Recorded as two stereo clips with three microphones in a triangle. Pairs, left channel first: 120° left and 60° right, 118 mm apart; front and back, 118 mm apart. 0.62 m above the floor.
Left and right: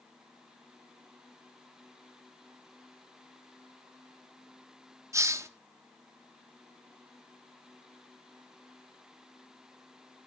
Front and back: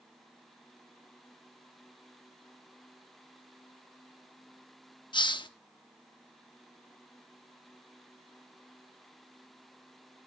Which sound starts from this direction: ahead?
A hiss, at 5.1 s.